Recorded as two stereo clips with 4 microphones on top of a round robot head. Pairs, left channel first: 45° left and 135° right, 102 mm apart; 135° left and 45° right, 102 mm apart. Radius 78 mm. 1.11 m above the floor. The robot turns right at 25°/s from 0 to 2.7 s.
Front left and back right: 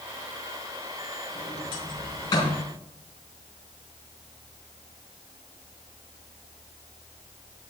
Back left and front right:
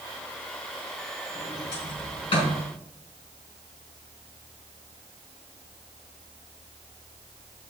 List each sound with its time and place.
1.4 s a sliding door: 70° left, 4 m; by 2.6 s 105° left, 4 m